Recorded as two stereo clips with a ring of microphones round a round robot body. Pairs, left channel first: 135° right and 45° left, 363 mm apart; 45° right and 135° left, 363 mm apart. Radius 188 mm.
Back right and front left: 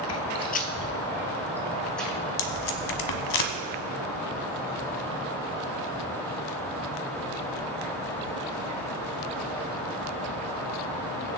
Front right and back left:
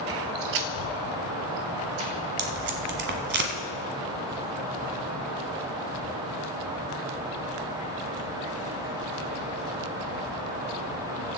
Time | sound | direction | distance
0.1 | footsteps | 150° right | 0.7 m
2.4 | tape being pulled | 165° right | 1.3 m